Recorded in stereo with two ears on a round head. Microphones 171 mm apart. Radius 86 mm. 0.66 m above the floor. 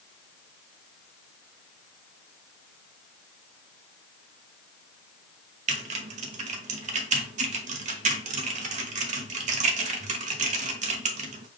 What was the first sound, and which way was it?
Typing on a keyboard, 45° right (ahead or behind).